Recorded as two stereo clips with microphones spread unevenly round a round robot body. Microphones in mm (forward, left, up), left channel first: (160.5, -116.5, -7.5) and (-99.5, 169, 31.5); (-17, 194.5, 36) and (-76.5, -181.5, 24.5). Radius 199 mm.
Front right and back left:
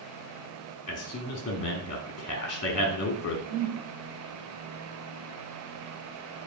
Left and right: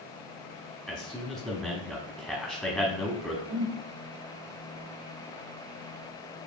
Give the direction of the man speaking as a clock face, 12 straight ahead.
12 o'clock.